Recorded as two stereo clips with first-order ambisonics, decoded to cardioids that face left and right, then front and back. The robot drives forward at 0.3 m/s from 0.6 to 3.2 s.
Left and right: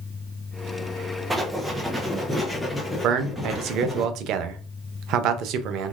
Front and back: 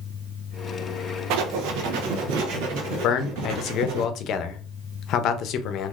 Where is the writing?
170° right, 0.6 m; by 4.0 s 175° right, 1.2 m.